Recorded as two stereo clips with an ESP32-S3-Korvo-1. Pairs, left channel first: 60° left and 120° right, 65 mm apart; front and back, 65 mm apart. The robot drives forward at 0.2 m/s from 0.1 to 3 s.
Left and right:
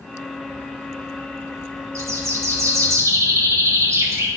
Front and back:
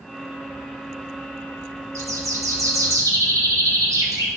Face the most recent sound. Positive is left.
turn(degrees=-160)